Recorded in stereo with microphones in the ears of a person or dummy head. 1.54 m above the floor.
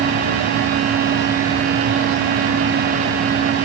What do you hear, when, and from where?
Only background noise.